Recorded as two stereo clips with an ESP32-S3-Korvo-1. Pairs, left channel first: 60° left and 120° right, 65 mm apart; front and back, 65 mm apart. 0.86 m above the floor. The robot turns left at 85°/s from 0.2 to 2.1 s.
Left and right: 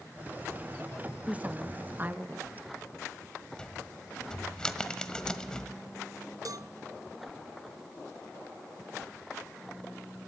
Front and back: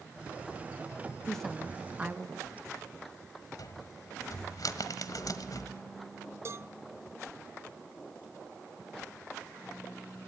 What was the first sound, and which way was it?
A woman speaking, 70° right.